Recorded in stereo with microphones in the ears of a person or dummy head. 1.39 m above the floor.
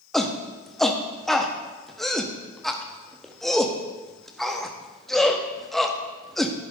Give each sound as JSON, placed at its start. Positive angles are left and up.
{"t": 0.1, "sound": "a shout", "side_deg": 0, "distance_m": 0.6}